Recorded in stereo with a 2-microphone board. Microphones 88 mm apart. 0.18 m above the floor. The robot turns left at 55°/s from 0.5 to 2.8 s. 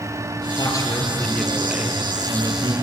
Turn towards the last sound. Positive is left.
turn(degrees=-70)